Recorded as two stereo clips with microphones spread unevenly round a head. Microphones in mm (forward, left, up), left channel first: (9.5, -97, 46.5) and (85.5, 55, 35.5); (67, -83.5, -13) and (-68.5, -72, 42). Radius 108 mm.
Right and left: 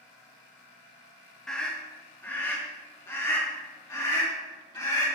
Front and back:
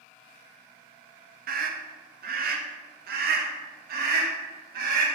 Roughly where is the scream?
Behind left.